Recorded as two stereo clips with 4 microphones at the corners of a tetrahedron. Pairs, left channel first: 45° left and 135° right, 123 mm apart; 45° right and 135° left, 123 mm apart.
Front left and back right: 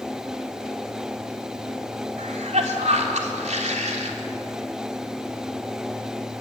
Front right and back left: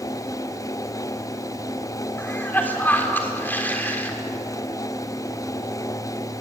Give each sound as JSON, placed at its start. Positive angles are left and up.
{"t": 2.2, "sound": "a cough", "azimuth_deg": -120, "distance_m": 3.5}